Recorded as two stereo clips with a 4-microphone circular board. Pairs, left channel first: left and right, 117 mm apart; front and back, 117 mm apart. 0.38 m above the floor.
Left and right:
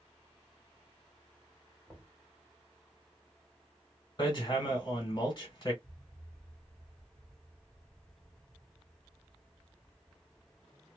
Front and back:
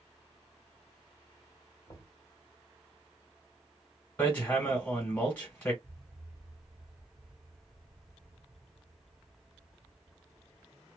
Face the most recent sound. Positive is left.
turn(degrees=-115)